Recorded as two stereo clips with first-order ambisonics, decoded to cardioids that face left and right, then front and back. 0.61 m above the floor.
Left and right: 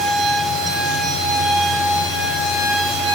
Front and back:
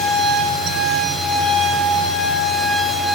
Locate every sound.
Only background noise.